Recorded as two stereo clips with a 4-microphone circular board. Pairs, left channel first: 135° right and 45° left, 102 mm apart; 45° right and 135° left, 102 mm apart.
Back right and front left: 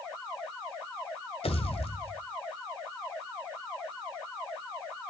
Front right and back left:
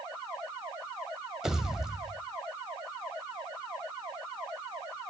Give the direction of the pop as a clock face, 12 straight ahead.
5 o'clock.